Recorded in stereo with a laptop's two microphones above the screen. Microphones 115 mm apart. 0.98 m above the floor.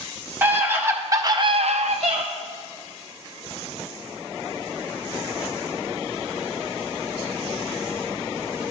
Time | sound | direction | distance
0.4 | a scream | 15° right (ahead or behind) | 1.8 m